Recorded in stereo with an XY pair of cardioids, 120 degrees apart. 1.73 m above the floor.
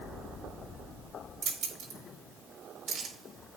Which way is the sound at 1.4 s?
60° right.